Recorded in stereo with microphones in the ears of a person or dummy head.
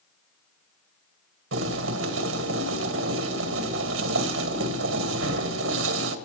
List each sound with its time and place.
1.5 s boiling: 65° right (ahead or behind), 1.7 m